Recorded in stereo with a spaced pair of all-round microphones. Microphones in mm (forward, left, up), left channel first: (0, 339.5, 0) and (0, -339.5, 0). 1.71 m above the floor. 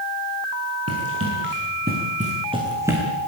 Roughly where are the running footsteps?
Right.